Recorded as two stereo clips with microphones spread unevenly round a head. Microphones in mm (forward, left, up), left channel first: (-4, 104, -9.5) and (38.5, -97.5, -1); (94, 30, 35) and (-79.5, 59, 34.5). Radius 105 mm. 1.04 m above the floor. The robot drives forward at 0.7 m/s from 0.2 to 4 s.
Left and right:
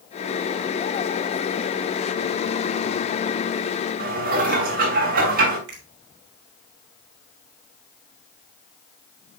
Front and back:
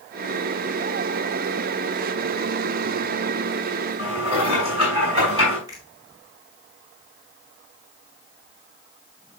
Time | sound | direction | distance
4.0 | dishes clattering | 125° right | 5 m
5.7 | a finger snap | 115° right | 3 m